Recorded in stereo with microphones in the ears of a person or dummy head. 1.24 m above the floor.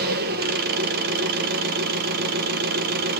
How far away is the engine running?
About 1.0 m.